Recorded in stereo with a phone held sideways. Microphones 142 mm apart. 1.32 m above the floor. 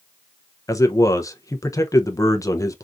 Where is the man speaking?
25° left (ahead or behind), 0.5 m.